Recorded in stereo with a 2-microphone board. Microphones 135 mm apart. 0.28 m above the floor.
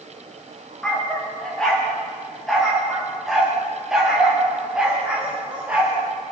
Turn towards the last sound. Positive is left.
turn(degrees=-10)  # may be behind; listen again after turning